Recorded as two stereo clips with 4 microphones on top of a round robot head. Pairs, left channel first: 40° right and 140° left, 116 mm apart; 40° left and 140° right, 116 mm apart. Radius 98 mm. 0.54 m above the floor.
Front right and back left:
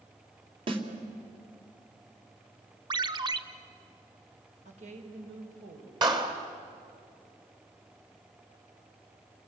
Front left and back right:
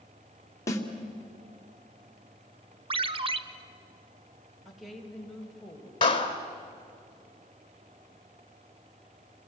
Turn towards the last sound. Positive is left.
turn(degrees=85)